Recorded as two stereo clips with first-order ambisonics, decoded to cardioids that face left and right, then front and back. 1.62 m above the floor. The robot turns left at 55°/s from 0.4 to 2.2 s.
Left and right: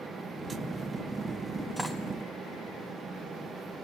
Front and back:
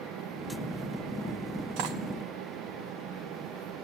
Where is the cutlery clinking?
175° right, 1.6 m; by 2.0 s 170° left, 1.6 m.